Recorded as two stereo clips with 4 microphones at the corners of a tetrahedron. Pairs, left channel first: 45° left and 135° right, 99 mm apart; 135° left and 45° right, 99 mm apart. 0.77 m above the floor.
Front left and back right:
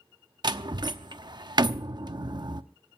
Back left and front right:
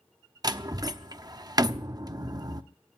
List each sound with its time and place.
0.4 s a door slam: 90° right, 0.7 m